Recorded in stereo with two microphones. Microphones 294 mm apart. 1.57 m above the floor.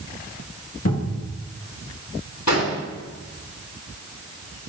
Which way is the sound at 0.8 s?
60° left (ahead or behind).